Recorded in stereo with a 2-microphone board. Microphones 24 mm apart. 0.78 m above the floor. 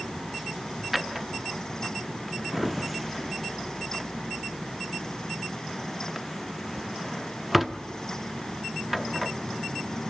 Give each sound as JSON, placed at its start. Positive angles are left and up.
{"t": 0.9, "sound": "a drawer", "side_deg": 0, "distance_m": 0.6}